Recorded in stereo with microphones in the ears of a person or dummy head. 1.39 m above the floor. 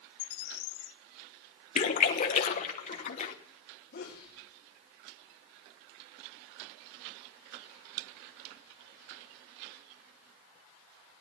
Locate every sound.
0.2 s a bird: 80° left, 1.5 m
1.8 s a splash: 40° left (ahead or behind), 1.2 m
3.9 s a sneeze: 45° left (ahead or behind), 3 m